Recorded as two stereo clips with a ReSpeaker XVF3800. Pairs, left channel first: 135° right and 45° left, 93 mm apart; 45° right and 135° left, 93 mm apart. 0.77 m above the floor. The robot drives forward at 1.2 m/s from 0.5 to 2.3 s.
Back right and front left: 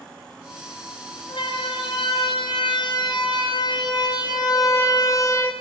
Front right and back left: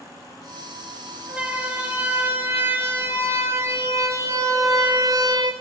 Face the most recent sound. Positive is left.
turn(degrees=170)